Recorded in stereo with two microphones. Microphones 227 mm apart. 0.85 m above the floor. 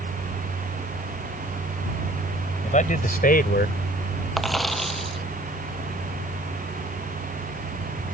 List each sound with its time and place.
2.6 s a man speaking: 35° left (ahead or behind); by 3.8 s 50° left (ahead or behind)
4.4 s a dropped coin: centre (ahead or behind)